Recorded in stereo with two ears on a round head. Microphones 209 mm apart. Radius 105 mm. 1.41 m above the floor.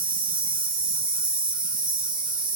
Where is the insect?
20° right (ahead or behind), 0.8 m.